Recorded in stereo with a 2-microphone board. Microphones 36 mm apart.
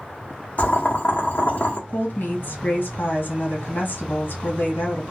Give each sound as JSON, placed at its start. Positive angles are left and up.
{"t": 0.6, "sound": "boiling", "side_deg": 45, "distance_m": 0.9}
{"t": 1.9, "sound": "a woman speaking", "side_deg": 65, "distance_m": 1.2}